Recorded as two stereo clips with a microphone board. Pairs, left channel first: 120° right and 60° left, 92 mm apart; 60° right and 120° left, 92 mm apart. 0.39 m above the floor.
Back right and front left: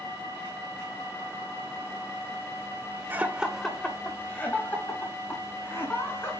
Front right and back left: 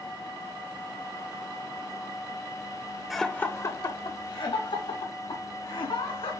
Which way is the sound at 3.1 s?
35° left.